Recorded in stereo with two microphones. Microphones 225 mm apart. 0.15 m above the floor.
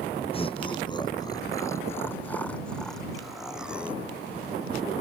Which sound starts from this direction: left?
Laughter, at 0.3 s.